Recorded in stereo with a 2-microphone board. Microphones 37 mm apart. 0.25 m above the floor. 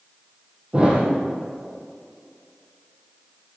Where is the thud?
25° right (ahead or behind), 3.5 m.